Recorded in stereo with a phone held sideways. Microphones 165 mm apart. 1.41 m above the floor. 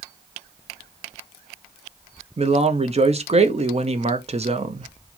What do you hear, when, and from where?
2.4 s a man speaking: 40° right (ahead or behind), 0.8 m